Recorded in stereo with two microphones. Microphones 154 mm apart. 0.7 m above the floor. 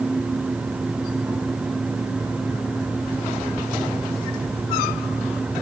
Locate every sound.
Only background noise.